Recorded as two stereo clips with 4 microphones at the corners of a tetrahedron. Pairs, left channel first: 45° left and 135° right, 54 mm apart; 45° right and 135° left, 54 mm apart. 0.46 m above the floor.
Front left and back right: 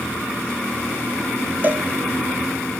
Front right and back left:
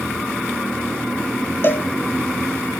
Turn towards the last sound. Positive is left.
turn(degrees=-85)